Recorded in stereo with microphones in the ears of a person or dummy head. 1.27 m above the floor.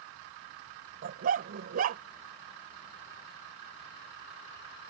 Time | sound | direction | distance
1.0 | a dog barking | 50° right (ahead or behind) | ?